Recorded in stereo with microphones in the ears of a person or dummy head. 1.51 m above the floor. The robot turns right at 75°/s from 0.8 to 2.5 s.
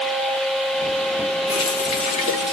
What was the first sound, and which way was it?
A running tap, 25° left (ahead or behind).